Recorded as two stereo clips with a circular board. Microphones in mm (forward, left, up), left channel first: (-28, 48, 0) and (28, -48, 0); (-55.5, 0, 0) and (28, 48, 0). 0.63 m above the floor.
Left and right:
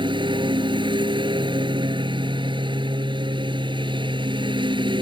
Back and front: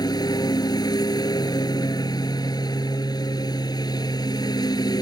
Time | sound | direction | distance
0.0 | a lawn mower | 105° right | ?